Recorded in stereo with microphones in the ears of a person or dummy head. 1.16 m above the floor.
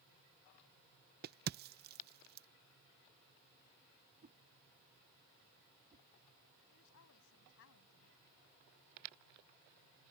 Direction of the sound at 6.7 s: 70° left (ahead or behind).